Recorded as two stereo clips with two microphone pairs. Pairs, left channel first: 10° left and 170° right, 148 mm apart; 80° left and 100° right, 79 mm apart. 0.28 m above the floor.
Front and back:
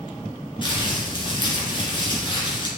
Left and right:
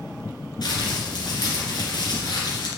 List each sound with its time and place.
0.6 s crumpling: 60° left, 2.5 m